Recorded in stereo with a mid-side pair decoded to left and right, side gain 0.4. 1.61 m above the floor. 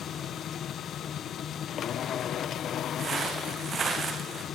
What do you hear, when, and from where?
0.0 s a machine running: 70° left, 1.0 m
3.0 s footsteps: 50° right, 6.5 m